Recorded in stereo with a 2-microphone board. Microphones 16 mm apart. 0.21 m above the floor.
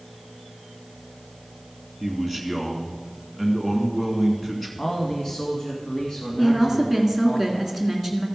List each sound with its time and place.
2.0 s a man speaking: 15° left (ahead or behind), 2.5 m
4.8 s a man speaking: 45° left (ahead or behind), 1.5 m
6.4 s a woman speaking: 5° left (ahead or behind), 2 m